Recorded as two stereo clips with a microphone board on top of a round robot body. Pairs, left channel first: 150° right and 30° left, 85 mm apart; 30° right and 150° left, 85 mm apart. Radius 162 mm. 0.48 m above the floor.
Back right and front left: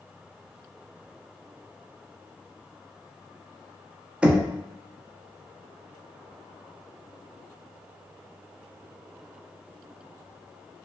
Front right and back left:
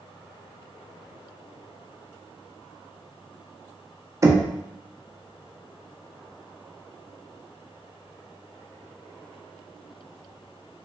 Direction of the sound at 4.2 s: 105° left.